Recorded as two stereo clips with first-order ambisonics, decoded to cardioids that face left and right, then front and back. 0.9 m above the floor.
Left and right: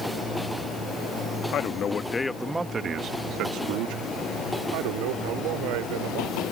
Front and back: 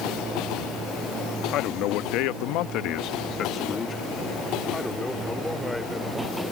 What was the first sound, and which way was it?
A man speaking, 40° left.